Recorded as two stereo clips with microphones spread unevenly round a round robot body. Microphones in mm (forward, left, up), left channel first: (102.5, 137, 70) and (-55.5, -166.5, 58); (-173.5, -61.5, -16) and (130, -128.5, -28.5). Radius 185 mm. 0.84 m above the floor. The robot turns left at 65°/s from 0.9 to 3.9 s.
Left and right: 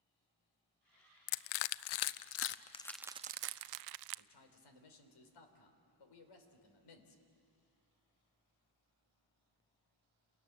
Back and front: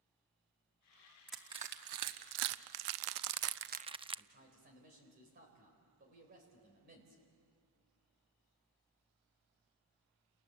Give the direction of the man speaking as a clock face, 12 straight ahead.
10 o'clock.